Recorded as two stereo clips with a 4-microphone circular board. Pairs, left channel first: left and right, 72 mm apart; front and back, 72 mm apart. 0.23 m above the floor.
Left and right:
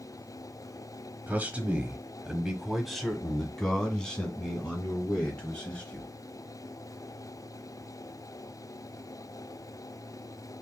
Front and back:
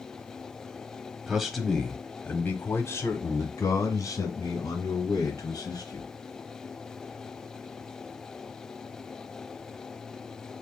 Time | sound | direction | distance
1.3 | a man speaking | 110° right | 1.1 m